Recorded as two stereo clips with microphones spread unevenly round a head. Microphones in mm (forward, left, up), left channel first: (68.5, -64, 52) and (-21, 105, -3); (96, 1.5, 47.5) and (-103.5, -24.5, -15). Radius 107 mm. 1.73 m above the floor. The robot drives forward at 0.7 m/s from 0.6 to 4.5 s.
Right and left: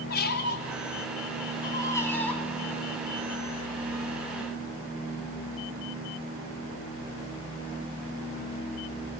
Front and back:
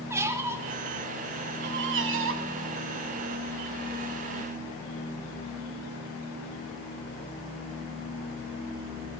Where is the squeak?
85° right, 1.1 m; by 2.5 s 140° right, 1.7 m.